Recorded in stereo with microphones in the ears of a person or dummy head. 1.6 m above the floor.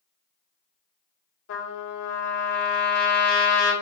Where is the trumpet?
75° left (ahead or behind), 1.6 m.